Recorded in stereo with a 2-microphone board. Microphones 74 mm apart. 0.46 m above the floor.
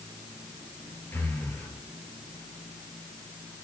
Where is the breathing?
25° left (ahead or behind), 1.5 m.